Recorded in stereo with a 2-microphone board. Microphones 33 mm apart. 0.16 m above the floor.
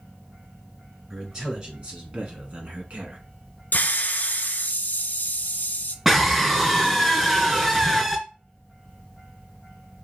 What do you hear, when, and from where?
1.1 s a man speaking: 25° right (ahead or behind), 1.9 m; by 3.2 s 40° right (ahead or behind), 1.9 m
3.7 s a hiss: 65° left (ahead or behind), 0.6 m
6.0 s a scream: 10° right (ahead or behind), 1.3 m